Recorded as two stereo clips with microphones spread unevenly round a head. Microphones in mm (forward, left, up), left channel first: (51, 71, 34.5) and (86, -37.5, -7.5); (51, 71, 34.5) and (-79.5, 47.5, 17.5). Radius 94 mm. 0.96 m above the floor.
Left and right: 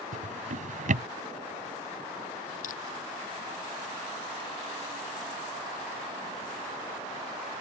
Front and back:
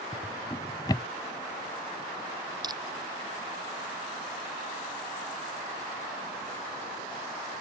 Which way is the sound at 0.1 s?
60° right.